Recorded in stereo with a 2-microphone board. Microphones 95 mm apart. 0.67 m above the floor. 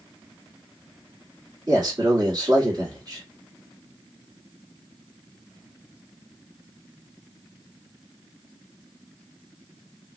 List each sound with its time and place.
1.7 s a man speaking: 40° right (ahead or behind), 1.7 m